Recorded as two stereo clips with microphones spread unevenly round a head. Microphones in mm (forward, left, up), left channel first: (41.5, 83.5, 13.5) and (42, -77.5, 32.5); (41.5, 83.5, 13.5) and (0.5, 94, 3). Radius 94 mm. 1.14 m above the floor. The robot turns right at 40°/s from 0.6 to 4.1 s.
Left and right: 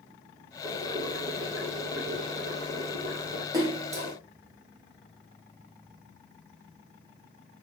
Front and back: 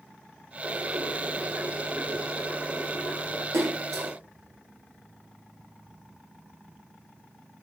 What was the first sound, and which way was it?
Boiling, 155° right.